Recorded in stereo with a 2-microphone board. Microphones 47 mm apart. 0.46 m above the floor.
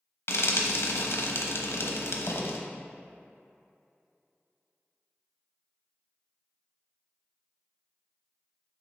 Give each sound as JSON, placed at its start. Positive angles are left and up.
{"t": 0.3, "sound": "frying", "side_deg": 75, "distance_m": 1.0}